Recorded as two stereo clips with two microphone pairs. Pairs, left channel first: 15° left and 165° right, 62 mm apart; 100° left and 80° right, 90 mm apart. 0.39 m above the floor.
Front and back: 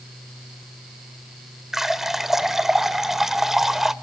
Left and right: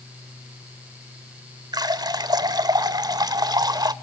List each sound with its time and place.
1.7 s a running tap: 80° right, 0.9 m